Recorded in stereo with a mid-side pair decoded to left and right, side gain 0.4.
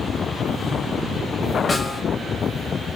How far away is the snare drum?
About 7 m.